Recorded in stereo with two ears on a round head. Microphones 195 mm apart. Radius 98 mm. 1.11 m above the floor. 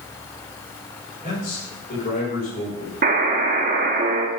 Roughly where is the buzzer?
Right.